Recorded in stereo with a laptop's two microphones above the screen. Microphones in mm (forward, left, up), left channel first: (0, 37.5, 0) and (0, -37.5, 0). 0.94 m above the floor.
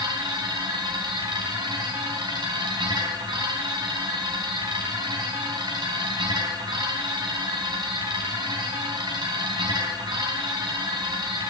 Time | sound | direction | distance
0.0 | a machine running | 80° right | 3.5 m